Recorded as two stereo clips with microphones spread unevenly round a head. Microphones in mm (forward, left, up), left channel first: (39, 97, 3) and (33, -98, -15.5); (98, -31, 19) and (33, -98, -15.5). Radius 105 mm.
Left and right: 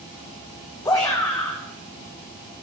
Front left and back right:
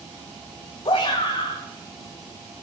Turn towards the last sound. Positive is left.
turn(degrees=15)